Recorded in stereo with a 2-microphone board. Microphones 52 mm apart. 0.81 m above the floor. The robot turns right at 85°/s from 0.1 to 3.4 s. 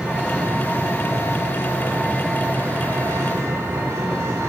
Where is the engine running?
20° right, 8 m; by 4.5 s 100° right, 8 m.